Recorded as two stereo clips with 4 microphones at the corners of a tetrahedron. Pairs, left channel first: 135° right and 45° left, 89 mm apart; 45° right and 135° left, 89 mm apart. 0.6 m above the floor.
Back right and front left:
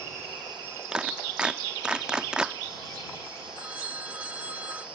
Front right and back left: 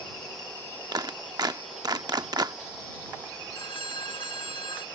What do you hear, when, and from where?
0.9 s a clap: 125° left
3.5 s a phone ringing: 25° right